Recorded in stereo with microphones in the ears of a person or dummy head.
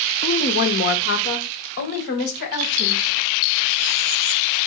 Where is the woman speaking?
30° left (ahead or behind), 0.5 m; by 3.0 s 55° left (ahead or behind), 1.8 m.